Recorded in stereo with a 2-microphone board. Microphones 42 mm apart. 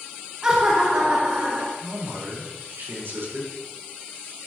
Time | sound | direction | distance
0.4 | laughter | 25° right (ahead or behind) | 1.3 m
1.8 | a man speaking | 85° right | 4 m